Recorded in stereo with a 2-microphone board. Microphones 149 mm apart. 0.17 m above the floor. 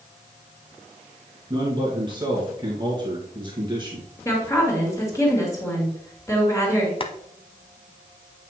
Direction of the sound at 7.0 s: 35° left (ahead or behind).